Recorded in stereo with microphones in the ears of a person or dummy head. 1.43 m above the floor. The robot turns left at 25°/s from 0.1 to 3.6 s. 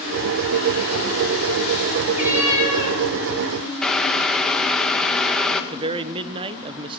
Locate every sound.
2.1 s a cat meowing: 10° right (ahead or behind), 7.5 m; by 3.0 s 30° right (ahead or behind), 7.5 m
3.8 s boiling: centre (ahead or behind), 1.5 m
5.7 s a man speaking: 30° right (ahead or behind), 1.1 m